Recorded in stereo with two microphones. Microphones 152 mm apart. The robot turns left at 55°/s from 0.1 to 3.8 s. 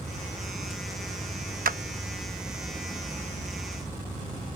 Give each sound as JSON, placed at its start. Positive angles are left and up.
{"t": 1.6, "sound": "a clap", "side_deg": -70}